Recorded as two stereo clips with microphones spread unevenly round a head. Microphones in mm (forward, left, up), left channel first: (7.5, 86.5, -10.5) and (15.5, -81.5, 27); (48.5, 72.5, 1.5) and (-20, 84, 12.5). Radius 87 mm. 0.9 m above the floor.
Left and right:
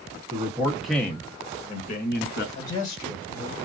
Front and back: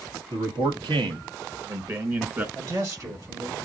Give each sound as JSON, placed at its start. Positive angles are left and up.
{"t": 0.3, "sound": "a man speaking", "azimuth_deg": -160, "distance_m": 1.2}
{"t": 2.5, "sound": "a man speaking", "azimuth_deg": 135, "distance_m": 4.5}